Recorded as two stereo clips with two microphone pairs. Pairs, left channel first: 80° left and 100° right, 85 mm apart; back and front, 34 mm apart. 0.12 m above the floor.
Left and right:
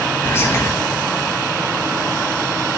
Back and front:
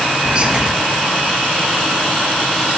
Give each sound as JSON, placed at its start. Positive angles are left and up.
{"t": 0.2, "sound": "whispering", "azimuth_deg": 40, "distance_m": 1.7}